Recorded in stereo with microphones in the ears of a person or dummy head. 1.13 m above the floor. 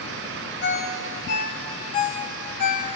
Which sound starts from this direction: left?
A ringtone, at 0.6 s.